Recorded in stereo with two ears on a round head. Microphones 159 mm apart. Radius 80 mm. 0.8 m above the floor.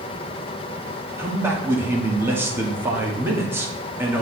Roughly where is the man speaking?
Centre.